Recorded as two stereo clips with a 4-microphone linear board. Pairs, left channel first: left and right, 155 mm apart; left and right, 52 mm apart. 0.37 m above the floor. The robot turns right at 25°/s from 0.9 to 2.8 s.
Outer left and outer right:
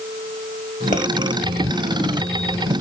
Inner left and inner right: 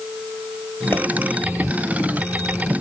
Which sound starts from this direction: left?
A pop, at 0.9 s.